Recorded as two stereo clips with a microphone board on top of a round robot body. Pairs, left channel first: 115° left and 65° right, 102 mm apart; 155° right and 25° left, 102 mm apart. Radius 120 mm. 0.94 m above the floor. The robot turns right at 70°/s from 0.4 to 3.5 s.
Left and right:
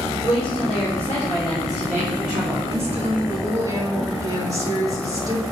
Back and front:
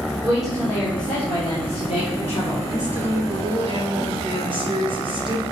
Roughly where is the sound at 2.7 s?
Ahead right.